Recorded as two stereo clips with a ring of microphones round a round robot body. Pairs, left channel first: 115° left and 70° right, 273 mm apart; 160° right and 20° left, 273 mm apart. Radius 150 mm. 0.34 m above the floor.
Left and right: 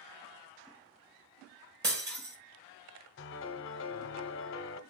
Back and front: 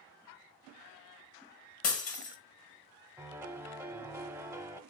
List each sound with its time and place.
1.8 s breaking glass: 120° right, 1.6 m
3.2 s a piano: 100° left, 0.8 m